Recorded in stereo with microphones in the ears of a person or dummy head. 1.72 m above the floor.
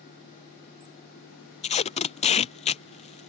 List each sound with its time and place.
1.6 s tape being pulled: 35° left (ahead or behind)